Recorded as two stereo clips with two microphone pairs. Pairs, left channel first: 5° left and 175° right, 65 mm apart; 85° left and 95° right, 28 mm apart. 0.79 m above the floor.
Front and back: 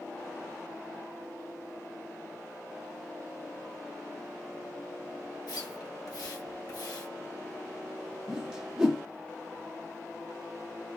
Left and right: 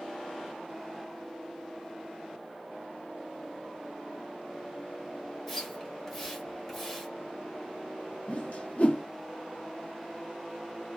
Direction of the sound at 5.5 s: 5° left.